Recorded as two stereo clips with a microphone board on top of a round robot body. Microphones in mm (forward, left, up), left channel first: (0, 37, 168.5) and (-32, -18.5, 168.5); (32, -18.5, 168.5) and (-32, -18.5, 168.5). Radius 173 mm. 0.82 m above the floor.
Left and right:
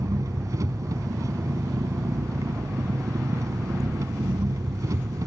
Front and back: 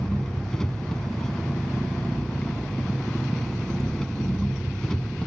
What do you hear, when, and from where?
0.0 s an engine running: 80° right